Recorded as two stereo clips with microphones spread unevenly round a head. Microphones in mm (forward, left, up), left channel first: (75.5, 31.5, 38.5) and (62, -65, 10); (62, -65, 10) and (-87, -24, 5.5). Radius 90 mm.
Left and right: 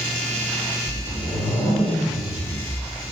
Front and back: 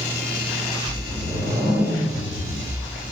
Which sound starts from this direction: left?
A whoosh, at 0.8 s.